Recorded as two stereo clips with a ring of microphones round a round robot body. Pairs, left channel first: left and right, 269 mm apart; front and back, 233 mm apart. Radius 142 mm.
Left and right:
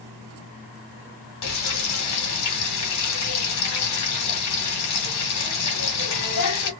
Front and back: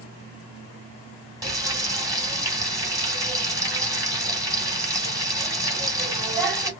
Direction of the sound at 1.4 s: 105° left.